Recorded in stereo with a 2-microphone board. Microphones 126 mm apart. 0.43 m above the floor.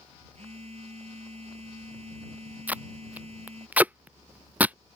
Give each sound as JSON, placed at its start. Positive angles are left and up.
{"t": 0.3, "sound": "a phone buzzing", "side_deg": -55}
{"t": 2.7, "sound": "tape being pulled", "side_deg": -10}